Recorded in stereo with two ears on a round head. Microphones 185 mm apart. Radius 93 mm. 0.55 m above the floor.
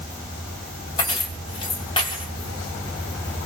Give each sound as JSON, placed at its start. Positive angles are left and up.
{"t": 1.0, "sound": "keys jangling", "side_deg": 25, "distance_m": 2.0}